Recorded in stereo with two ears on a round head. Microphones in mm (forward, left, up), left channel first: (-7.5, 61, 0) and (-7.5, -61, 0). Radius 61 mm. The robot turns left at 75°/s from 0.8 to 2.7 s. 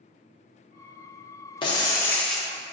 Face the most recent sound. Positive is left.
turn(degrees=-20)